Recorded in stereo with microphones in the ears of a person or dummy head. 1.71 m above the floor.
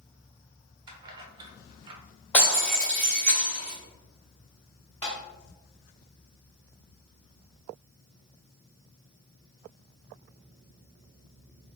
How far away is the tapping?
About 1.0 m.